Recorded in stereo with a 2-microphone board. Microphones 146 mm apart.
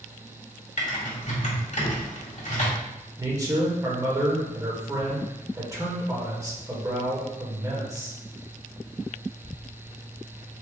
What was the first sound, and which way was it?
Typing on a keyboard, 55° left (ahead or behind).